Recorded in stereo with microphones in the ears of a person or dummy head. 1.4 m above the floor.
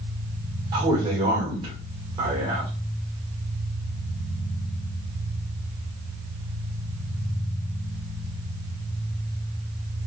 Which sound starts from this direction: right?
A man speaking, at 0.7 s.